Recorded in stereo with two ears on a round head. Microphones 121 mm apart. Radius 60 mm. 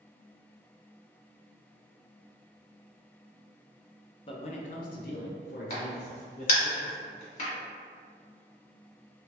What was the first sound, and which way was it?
A man speaking, 35° left (ahead or behind).